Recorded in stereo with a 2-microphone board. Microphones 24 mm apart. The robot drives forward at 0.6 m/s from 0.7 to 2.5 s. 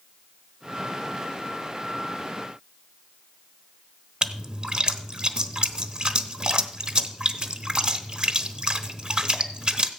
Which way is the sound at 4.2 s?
40° right (ahead or behind).